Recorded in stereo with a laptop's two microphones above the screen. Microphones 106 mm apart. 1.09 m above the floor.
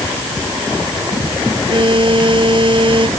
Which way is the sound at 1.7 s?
50° right (ahead or behind).